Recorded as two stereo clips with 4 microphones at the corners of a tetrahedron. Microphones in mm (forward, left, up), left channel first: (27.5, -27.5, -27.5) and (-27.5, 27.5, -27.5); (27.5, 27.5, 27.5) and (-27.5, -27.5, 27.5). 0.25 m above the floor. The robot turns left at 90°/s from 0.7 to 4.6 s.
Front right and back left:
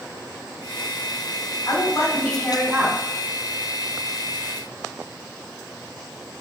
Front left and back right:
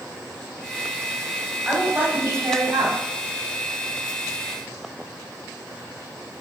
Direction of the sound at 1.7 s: 55° right.